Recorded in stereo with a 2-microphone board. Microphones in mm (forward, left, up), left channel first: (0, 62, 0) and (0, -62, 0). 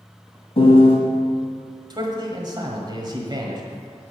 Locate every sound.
0.6 s a piano: 55° left (ahead or behind), 1.6 m
1.9 s a man speaking: 35° right (ahead or behind), 1.5 m